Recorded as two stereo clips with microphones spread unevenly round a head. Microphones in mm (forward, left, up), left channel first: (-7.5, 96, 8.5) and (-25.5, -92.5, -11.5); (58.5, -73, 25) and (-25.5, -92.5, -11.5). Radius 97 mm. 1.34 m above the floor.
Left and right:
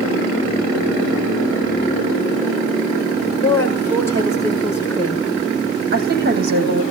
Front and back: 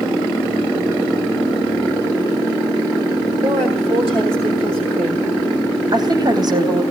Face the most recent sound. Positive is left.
turn(degrees=-135)